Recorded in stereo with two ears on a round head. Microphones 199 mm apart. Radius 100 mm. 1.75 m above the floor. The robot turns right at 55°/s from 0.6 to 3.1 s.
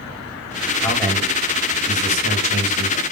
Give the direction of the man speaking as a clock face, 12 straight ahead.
7 o'clock.